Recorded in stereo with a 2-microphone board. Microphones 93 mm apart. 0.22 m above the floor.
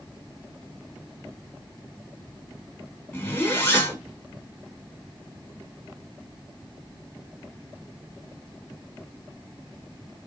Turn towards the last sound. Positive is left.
turn(degrees=20)  # may be behind; listen again after turning